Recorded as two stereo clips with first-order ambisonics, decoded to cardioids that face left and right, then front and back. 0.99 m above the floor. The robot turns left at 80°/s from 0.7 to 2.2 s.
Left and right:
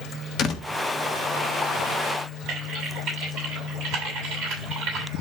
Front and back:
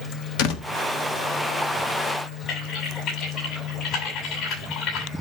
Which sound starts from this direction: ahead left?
A door slam, at 0.4 s.